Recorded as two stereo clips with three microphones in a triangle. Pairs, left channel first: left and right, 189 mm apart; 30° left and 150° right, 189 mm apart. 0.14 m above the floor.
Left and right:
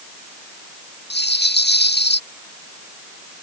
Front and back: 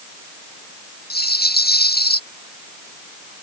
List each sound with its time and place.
1.1 s a rattle: 65° left